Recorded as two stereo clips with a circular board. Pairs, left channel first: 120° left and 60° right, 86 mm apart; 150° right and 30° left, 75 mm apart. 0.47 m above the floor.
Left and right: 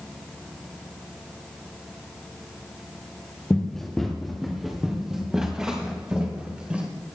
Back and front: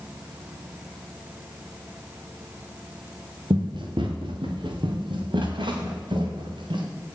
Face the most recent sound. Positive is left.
turn(degrees=15)